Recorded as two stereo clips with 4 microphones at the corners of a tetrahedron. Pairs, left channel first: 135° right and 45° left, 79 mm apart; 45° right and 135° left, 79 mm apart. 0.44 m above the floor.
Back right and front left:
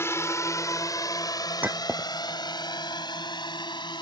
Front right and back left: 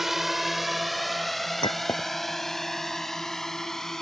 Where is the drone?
140° right; by 4.0 s 130° right.